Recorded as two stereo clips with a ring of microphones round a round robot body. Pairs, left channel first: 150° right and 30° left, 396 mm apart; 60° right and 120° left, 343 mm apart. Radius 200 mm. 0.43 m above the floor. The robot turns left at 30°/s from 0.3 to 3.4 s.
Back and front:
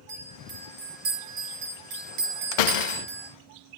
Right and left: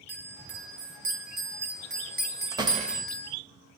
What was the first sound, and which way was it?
A bell, 110° left.